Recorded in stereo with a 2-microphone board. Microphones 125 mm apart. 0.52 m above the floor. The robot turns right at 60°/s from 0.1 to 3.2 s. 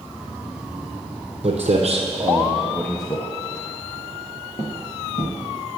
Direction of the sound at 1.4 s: 60° right (ahead or behind).